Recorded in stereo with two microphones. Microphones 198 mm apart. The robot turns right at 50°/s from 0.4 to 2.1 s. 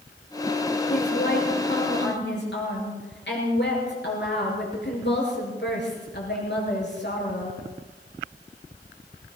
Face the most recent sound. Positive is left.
turn(degrees=115)